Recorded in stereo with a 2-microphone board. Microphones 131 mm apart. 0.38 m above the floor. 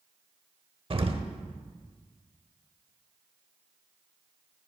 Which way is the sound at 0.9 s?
45° right (ahead or behind).